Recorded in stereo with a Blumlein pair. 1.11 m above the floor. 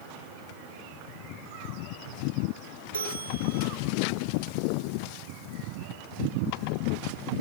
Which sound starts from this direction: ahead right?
A bell, at 2.9 s.